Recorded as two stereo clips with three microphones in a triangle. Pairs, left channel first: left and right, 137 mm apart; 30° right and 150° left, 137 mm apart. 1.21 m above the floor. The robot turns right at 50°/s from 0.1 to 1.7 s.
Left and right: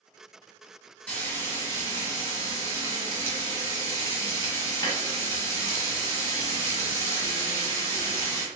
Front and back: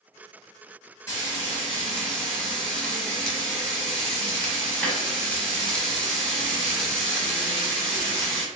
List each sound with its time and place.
1.1 s frying: 20° left, 1.1 m; by 8.4 s 50° left, 1.1 m